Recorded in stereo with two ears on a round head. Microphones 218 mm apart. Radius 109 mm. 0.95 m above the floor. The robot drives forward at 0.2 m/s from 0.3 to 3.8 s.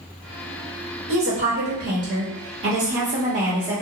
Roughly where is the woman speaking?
Right.